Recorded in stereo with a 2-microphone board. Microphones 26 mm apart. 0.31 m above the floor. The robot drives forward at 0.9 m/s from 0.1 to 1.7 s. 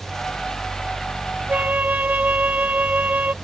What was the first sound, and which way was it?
A flute, 80° right.